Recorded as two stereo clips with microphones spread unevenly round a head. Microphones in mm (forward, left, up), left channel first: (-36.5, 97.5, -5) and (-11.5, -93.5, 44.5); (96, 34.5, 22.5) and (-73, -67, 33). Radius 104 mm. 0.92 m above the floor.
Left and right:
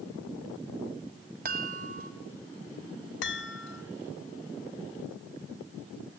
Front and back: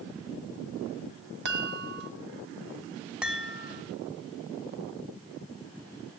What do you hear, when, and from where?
1.4 s a chime: 120° right, 1.8 m
3.2 s a chime: 125° left, 1.9 m